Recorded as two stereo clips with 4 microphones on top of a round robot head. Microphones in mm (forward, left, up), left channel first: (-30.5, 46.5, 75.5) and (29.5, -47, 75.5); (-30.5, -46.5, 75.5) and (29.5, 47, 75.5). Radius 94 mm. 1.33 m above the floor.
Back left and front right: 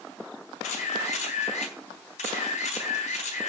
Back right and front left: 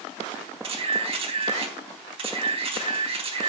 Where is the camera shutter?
100° left, 3.5 m.